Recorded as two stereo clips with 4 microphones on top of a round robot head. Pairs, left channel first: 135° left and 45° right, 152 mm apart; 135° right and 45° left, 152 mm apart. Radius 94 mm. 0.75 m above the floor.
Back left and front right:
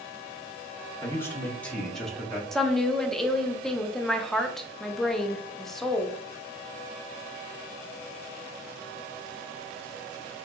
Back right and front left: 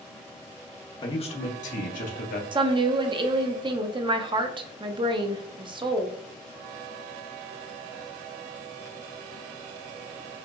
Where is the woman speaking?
50° left, 0.7 m.